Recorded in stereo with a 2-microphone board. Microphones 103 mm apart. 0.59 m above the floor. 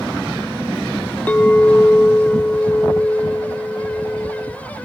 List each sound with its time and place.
1.3 s a clink: 15° left (ahead or behind), 0.7 m